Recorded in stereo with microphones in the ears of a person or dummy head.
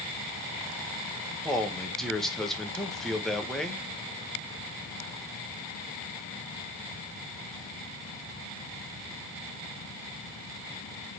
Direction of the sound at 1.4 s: Centre (ahead or behind).